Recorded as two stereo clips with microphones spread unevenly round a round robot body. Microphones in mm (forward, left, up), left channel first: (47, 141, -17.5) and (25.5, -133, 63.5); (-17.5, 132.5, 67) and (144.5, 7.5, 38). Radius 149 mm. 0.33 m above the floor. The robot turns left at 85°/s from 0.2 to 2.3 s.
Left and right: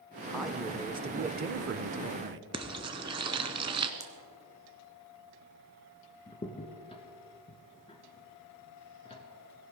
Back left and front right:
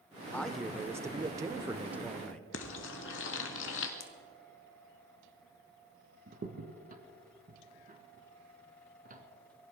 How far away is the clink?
I don't hear a clink.